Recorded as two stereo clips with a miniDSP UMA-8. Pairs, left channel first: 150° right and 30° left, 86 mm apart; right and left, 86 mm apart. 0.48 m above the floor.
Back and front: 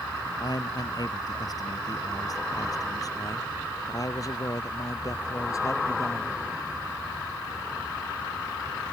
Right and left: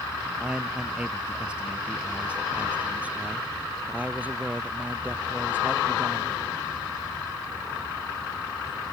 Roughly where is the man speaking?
Behind.